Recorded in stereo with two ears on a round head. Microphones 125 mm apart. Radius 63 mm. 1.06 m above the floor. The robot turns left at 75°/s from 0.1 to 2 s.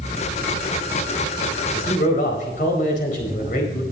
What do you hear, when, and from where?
1.7 s a man speaking: 80° left, 4.5 m; by 3.8 s 60° left (ahead or behind), 4.5 m